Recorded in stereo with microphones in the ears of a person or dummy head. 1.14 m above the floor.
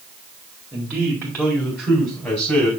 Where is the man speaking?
Centre (ahead or behind), 2 m; by 2.7 s 20° left (ahead or behind), 3.5 m.